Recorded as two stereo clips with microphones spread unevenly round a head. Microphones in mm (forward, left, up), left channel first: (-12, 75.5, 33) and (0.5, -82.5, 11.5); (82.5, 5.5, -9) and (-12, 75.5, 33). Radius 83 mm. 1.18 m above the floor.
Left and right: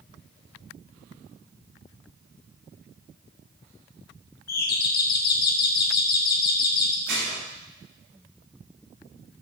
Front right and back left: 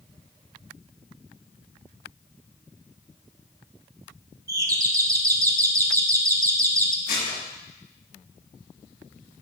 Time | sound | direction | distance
4.5 | a doorbell | 75° left | 1.6 m
7.1 | dishes clattering | 55° right | 5 m